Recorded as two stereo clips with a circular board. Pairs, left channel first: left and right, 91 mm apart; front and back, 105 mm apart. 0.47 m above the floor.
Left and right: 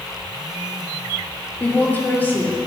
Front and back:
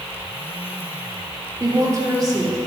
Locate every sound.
1.6 s a woman speaking: 150° left, 1.3 m